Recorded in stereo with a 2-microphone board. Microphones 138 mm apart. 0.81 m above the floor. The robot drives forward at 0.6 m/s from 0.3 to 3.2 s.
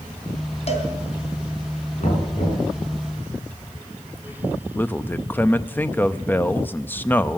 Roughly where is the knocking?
Left.